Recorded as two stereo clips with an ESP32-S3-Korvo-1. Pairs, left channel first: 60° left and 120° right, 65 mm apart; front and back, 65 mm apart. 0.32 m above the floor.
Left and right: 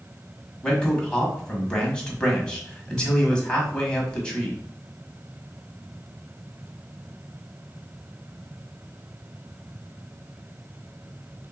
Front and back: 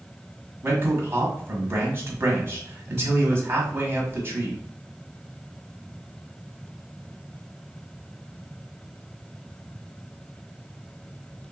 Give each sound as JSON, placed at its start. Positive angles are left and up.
{"t": 0.6, "sound": "a man speaking", "azimuth_deg": 135, "distance_m": 1.6}